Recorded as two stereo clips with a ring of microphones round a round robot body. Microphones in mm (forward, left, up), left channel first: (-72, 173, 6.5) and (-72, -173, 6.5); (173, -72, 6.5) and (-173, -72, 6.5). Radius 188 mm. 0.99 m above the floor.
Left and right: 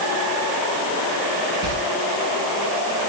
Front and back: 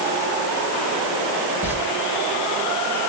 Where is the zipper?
No zipper in this recording.